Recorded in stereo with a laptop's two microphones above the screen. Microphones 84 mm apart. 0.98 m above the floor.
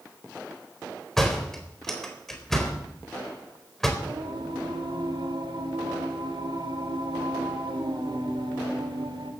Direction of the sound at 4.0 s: 75° right (ahead or behind).